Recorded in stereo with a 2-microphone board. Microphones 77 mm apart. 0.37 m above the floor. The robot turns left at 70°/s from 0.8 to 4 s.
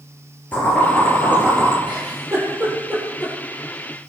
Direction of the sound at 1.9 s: 80° right.